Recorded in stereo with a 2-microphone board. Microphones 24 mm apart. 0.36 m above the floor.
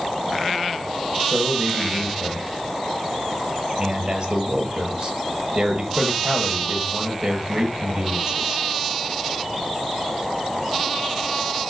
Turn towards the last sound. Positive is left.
turn(degrees=-50)  # may be behind; listen again after turning